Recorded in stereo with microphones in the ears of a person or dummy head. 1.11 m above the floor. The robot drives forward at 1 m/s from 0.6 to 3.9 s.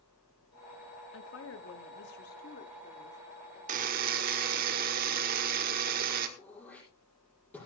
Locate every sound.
1.1 s a woman speaking: 70° left (ahead or behind), 1.3 m; by 3.6 s 30° left (ahead or behind), 2.5 m
3.7 s a buzzer: 45° right (ahead or behind), 1.4 m
6.4 s throat clearing: 5° left (ahead or behind), 5.5 m